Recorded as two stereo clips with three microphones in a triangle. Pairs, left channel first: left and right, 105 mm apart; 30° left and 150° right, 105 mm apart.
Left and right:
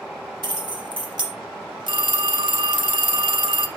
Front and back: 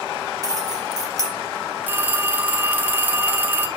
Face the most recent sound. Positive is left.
turn(degrees=-85)